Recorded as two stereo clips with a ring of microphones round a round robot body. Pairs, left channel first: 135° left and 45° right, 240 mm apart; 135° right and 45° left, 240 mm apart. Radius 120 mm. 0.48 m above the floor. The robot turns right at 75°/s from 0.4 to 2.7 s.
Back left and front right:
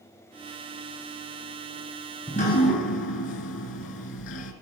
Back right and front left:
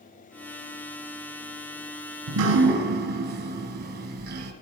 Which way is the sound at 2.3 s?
65° left.